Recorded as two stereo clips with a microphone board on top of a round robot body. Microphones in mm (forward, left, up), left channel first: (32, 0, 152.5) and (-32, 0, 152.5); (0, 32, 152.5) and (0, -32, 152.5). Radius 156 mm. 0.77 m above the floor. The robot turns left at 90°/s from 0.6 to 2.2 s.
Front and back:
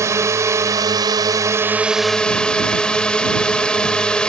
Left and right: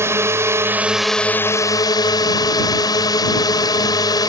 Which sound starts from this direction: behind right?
A drone, at 0.0 s.